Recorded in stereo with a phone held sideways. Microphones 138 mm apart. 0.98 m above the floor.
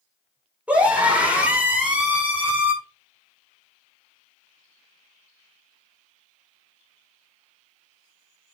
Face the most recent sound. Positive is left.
turn(degrees=-10)  # may be behind; listen again after turning